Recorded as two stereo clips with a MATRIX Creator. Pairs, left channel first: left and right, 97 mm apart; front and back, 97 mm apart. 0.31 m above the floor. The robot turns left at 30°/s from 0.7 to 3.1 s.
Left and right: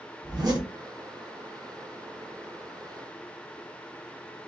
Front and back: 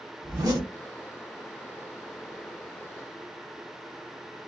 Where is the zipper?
130° right, 1.1 m.